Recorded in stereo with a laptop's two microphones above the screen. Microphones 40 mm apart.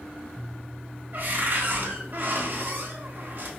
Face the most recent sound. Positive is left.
turn(degrees=-50)  # may be behind; listen again after turning